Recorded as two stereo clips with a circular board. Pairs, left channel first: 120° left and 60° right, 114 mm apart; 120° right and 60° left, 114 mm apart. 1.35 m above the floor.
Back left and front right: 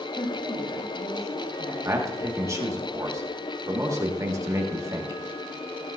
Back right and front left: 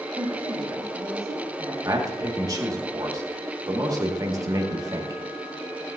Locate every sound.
0.1 s a woman speaking: 100° left, 4.5 m; by 1.8 s 125° left, 5 m
1.9 s a man speaking: 5° left, 1.7 m